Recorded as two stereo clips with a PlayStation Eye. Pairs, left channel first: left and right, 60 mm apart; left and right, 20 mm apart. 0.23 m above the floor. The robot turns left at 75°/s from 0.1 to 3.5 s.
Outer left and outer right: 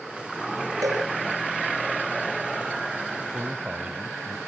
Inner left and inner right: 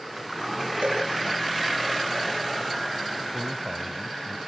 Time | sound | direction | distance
0.8 | a cowbell | 75° right (ahead or behind) | 7 m
3.3 | a man speaking | 30° right (ahead or behind) | 1.0 m